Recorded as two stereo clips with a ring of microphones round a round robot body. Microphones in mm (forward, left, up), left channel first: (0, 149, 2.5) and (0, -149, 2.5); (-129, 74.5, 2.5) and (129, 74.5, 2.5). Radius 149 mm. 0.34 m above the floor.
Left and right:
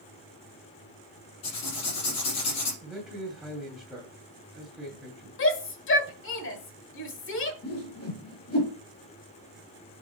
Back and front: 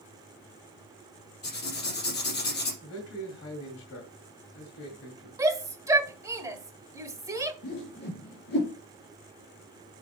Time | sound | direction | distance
1.4 | writing | 130° left | 4.5 m
2.8 | a man speaking | straight behind | 2 m
5.4 | a shout | 70° left | 1.4 m
7.6 | a whoosh | 130° left | 4 m